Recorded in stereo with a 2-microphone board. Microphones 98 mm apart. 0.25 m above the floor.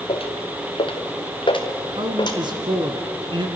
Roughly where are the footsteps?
Left.